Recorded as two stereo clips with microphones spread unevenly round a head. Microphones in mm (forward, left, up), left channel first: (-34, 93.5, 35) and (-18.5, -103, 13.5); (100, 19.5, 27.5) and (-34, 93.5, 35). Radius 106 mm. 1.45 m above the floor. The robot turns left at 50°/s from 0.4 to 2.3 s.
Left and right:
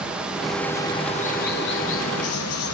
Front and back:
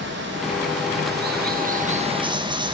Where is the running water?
175° right, 1.2 m; by 2.7 s 90° left, 1.2 m.